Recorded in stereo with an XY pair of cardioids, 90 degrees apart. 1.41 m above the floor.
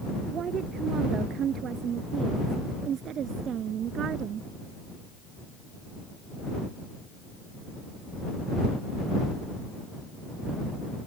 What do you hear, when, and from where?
0.3 s a woman speaking: 70° right; by 4.5 s 75° right